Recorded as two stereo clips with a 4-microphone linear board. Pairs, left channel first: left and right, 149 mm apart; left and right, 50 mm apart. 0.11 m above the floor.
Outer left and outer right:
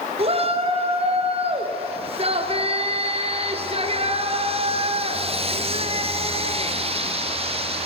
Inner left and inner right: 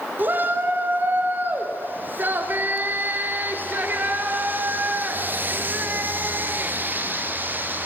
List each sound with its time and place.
0.2 s a shout: 40° right (ahead or behind), 2.5 m